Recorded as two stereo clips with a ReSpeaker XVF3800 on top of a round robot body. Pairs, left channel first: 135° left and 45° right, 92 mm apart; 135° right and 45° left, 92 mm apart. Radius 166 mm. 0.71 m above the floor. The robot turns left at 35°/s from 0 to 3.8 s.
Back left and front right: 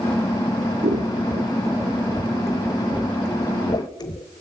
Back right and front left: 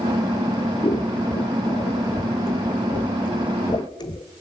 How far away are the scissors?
About 1.1 m.